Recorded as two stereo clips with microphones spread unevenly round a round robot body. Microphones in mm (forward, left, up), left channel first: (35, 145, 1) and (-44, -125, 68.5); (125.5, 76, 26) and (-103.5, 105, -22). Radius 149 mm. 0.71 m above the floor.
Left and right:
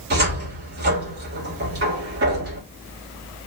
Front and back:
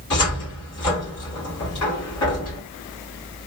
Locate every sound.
0.1 s a cupboard door: 45° right, 2.0 m